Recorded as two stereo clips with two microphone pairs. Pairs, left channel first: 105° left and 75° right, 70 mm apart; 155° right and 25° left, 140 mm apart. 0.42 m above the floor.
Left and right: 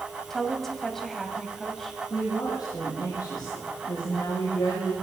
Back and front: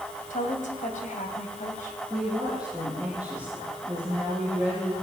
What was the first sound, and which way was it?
A woman speaking, 170° right.